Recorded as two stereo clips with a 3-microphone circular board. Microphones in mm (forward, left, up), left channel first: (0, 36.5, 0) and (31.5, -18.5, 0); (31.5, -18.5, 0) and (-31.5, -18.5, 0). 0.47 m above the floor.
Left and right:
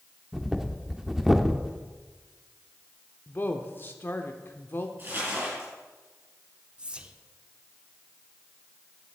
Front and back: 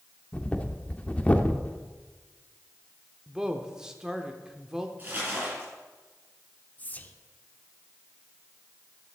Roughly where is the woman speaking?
Left.